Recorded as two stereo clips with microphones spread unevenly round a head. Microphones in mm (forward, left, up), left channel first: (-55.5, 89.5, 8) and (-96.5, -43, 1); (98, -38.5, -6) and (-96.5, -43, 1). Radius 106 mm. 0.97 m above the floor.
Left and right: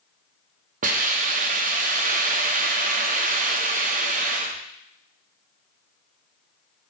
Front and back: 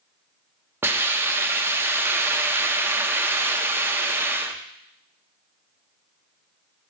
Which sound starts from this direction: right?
A hiss, at 0.8 s.